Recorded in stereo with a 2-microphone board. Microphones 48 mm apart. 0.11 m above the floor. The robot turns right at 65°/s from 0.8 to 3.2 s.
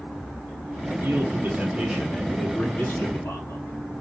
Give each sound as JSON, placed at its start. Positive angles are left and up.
{"t": 1.0, "sound": "a man speaking", "azimuth_deg": -80, "distance_m": 3.5}